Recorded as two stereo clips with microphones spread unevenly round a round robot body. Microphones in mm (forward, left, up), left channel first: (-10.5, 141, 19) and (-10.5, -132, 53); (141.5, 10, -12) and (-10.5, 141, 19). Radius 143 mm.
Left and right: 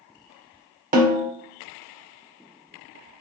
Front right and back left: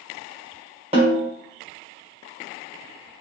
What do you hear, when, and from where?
0.9 s a snare drum: 150° right, 1.7 m